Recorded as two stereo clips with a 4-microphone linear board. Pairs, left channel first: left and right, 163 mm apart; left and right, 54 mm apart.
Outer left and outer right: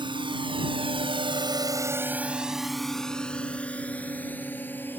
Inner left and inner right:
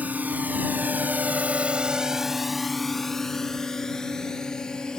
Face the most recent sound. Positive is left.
turn(degrees=15)  # may be behind; listen again after turning